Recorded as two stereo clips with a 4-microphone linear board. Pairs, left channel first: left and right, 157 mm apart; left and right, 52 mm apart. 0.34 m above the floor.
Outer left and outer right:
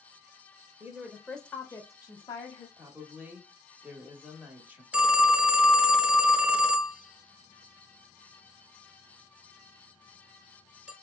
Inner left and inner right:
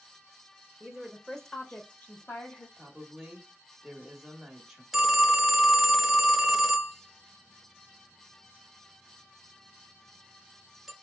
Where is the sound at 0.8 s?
15° right (ahead or behind), 0.9 m; by 2.7 s 35° left (ahead or behind), 1.2 m.